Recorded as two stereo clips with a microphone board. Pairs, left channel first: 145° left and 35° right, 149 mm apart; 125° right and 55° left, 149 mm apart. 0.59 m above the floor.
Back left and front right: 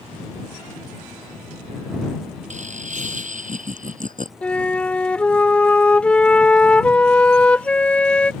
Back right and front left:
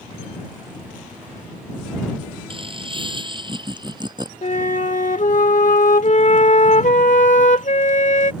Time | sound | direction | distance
2.5 | laughter | straight ahead | ?
4.4 | a flute | 135° right | ?